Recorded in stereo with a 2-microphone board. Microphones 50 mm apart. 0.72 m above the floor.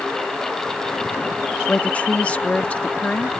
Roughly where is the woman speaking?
Left.